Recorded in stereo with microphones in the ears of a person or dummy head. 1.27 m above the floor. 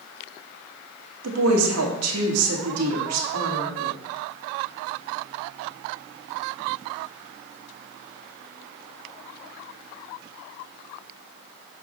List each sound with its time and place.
1.2 s a woman speaking: 75° right (ahead or behind), 2 m